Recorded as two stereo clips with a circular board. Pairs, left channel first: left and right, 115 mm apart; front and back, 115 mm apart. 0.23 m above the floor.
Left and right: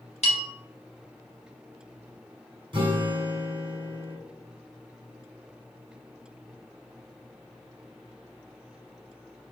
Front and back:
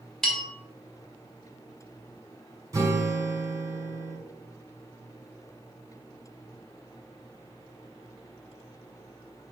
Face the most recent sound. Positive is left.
turn(degrees=-125)